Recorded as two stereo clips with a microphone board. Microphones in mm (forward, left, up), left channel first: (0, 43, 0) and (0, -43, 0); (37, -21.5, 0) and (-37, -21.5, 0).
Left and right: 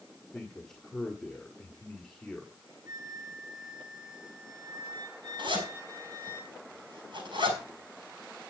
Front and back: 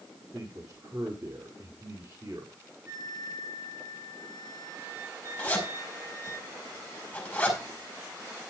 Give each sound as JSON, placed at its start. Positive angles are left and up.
{"t": 0.3, "sound": "a man speaking", "azimuth_deg": 170, "distance_m": 1.6}
{"t": 2.9, "sound": "a flute", "azimuth_deg": -130, "distance_m": 7.5}
{"t": 5.4, "sound": "a zipper", "azimuth_deg": -75, "distance_m": 6.0}